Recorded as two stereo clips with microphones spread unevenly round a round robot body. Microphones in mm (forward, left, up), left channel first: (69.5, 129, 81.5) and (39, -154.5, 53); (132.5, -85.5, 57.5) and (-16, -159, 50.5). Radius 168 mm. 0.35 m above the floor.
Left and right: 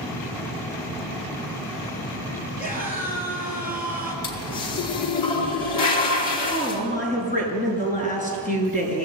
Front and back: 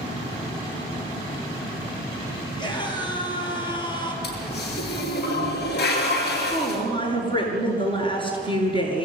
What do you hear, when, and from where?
2.6 s a scream: 155° left, 7 m
4.2 s a toilet flushing: 95° left, 5.5 m
6.4 s a woman speaking: 150° left, 6 m